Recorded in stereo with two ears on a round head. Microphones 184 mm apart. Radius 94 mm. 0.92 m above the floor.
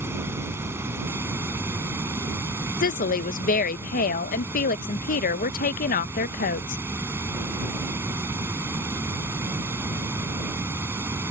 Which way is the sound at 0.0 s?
10° right (ahead or behind).